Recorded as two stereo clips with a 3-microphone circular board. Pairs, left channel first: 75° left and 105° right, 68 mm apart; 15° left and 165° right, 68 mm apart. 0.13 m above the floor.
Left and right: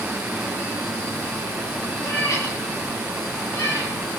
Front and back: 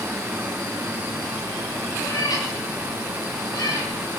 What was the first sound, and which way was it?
A cat meowing, 30° left.